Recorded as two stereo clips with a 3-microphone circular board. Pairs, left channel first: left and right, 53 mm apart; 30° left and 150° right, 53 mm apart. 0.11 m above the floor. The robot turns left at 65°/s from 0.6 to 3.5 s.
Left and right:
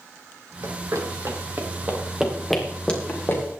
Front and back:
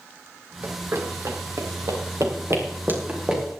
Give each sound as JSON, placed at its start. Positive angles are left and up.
{"t": 0.6, "sound": "running footsteps", "azimuth_deg": -100, "distance_m": 3.0}